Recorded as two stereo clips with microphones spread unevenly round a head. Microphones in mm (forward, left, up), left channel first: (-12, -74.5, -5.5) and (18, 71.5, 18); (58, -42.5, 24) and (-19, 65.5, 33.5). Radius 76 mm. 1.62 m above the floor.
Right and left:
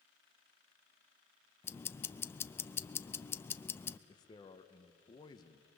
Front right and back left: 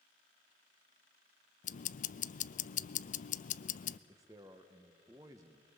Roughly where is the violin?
I don't hear a violin.